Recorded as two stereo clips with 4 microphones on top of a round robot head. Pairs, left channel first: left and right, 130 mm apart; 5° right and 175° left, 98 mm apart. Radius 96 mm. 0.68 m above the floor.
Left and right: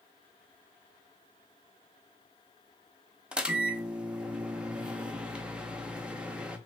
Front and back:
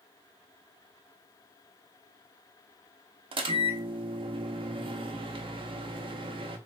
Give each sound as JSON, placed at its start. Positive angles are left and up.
{"t": 3.3, "sound": "a microwave", "azimuth_deg": -170, "distance_m": 0.6}